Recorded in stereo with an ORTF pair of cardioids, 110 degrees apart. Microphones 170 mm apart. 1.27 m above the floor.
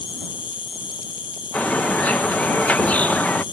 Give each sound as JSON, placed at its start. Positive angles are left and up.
{"t": 0.0, "sound": "an insect", "azimuth_deg": 30}
{"t": 1.5, "sound": "a bird", "azimuth_deg": 10}